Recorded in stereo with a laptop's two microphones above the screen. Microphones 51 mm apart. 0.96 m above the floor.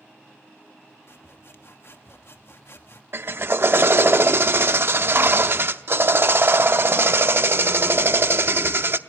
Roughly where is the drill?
Right.